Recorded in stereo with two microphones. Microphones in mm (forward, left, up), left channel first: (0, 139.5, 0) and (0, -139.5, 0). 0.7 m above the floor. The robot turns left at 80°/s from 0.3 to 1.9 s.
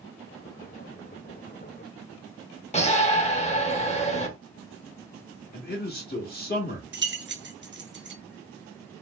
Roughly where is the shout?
Left.